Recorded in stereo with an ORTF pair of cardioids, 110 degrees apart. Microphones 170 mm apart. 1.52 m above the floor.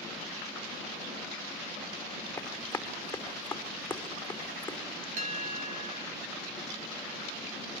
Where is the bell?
50° right, 3.5 m.